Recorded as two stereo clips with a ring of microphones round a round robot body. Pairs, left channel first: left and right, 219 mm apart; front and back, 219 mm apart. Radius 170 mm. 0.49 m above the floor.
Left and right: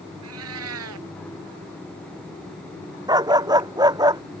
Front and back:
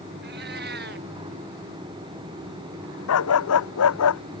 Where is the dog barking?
20° right.